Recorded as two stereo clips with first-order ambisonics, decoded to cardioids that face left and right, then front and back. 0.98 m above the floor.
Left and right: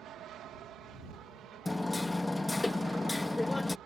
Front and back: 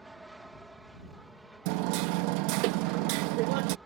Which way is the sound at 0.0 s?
95° right.